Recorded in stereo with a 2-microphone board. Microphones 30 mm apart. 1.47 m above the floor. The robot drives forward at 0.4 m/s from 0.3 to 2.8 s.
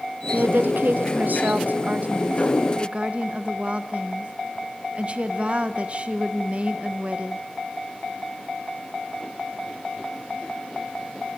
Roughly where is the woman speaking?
Right.